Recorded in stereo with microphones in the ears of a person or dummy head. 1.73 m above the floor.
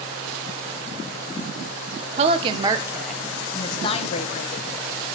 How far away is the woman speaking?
About 1.4 m.